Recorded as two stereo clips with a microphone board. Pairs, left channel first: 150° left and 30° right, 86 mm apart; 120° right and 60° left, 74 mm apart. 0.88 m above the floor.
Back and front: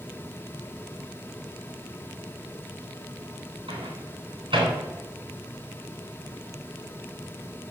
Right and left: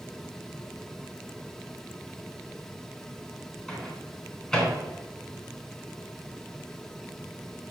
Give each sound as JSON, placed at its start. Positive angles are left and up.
{"t": 3.7, "sound": "a microwave", "azimuth_deg": -45, "distance_m": 3.0}